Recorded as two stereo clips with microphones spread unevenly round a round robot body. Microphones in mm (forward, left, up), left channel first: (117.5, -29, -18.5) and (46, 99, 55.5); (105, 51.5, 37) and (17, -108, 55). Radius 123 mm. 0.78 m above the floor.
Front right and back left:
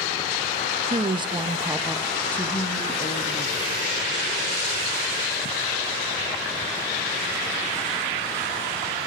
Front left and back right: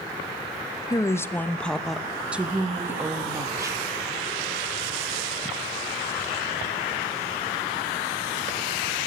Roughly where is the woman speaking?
Ahead left.